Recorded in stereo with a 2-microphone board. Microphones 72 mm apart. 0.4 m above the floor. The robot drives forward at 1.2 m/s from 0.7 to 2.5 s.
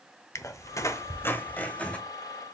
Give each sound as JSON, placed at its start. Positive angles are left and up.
{"t": 0.3, "sound": "a squeak", "side_deg": 40, "distance_m": 0.7}